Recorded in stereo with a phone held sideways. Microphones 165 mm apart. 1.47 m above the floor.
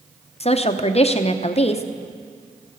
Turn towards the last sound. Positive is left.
turn(degrees=40)  # may be behind; listen again after turning